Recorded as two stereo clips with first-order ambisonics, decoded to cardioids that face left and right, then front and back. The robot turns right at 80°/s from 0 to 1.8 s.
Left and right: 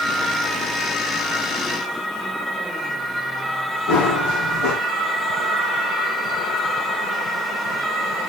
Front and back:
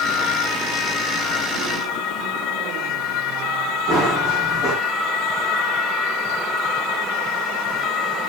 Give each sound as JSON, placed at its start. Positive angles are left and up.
{"t": 3.9, "sound": "running footsteps", "azimuth_deg": 105, "distance_m": 7.0}